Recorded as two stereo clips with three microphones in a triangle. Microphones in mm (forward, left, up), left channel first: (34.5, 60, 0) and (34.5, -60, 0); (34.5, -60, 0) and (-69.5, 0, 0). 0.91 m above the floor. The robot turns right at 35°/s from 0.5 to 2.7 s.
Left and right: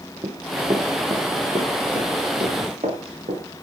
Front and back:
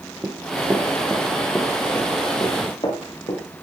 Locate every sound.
0.2 s running footsteps: 135° right, 2.5 m; by 3.4 s 80° right, 6.5 m